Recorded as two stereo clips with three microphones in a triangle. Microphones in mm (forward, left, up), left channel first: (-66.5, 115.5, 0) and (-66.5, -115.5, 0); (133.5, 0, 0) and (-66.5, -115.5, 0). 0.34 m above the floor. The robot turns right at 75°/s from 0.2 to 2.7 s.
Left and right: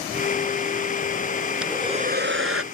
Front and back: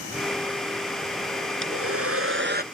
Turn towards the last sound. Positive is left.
turn(degrees=-95)